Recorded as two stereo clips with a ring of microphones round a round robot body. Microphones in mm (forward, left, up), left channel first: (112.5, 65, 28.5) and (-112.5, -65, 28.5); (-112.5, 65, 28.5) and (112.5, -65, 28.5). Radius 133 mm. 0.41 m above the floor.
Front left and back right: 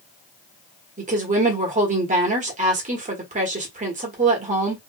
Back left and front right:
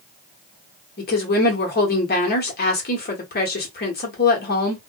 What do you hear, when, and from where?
1.0 s a woman speaking: 165° left, 1.2 m